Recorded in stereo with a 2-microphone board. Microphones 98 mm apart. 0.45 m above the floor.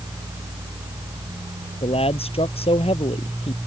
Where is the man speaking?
80° left; by 3.6 s 85° left.